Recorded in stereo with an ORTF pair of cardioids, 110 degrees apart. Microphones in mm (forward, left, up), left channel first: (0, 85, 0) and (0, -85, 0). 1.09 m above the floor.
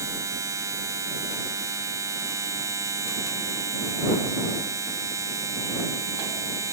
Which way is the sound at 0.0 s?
20° right.